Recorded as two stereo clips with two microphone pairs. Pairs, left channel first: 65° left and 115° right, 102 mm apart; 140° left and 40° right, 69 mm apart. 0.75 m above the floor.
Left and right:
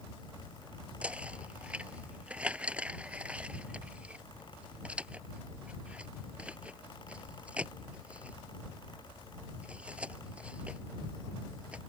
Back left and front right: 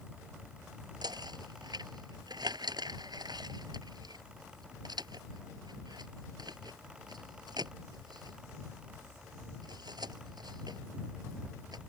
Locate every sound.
1.0 s knocking: 35° right